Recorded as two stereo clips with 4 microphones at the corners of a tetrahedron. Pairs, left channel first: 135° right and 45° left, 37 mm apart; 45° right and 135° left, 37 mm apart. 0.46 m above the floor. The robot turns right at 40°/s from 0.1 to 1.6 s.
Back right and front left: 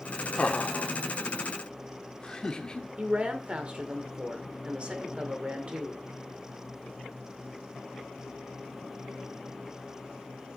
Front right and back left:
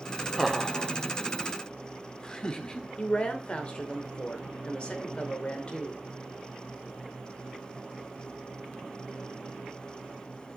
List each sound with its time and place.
0.4 s laughter: 140° right, 0.9 m; by 2.9 s 95° right, 0.9 m
3.0 s a woman speaking: straight ahead, 1.7 m